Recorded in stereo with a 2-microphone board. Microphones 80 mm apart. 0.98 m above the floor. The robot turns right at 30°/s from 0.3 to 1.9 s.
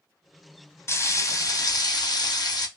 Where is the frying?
35° left, 0.6 m; by 2.7 s 70° left, 0.6 m.